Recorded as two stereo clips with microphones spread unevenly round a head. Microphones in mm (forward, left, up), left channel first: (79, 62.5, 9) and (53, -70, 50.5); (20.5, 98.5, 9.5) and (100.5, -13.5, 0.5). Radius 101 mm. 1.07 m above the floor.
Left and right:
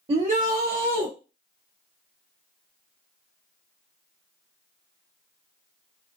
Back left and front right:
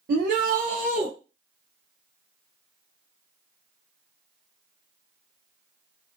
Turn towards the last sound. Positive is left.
turn(degrees=-115)